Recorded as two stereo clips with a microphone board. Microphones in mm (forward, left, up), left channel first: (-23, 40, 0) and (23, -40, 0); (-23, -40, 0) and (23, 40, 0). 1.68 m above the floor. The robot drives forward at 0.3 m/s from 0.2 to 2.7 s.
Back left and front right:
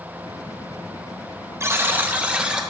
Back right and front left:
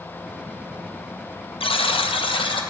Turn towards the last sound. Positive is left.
turn(degrees=-140)